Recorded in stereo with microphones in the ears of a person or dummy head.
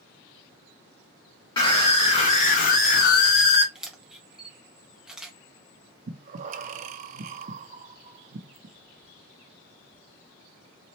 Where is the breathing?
40° right (ahead or behind), 0.7 m.